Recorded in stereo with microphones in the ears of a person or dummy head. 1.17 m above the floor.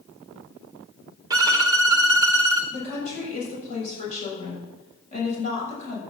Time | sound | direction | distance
1.3 | a violin | 20° right (ahead or behind) | 0.8 m
2.7 | a woman speaking | 40° left (ahead or behind) | 7 m